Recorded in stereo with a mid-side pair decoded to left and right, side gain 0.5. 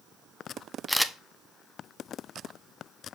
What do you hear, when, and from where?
0.9 s a camera shutter: 5° left, 0.6 m